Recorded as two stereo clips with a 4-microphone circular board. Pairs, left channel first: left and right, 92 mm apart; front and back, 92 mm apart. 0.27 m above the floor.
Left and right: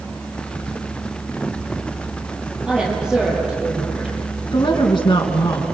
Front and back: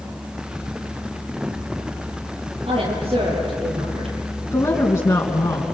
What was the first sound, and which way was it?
A woman speaking, 170° right.